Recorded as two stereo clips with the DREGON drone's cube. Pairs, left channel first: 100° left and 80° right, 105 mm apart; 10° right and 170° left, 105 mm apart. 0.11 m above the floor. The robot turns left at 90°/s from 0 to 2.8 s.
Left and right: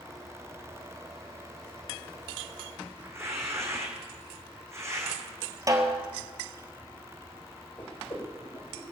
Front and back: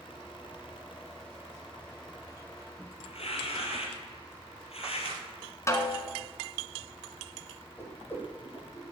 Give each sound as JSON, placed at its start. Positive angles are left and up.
{"t": 3.0, "sound": "tearing paper", "azimuth_deg": -15, "distance_m": 3.5}
{"t": 5.7, "sound": "a snare drum", "azimuth_deg": -50, "distance_m": 2.0}
{"t": 7.8, "sound": "a whoosh", "azimuth_deg": 60, "distance_m": 6.0}